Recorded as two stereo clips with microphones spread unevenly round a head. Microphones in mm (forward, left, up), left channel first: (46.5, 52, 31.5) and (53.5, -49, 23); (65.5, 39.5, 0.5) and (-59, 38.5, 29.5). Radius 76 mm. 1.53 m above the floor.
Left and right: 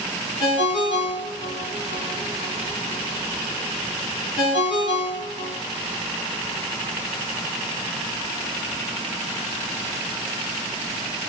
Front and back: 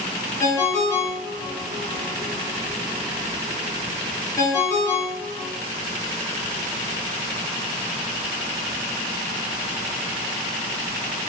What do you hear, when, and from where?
0.4 s a ringtone: 75° left, 1.0 m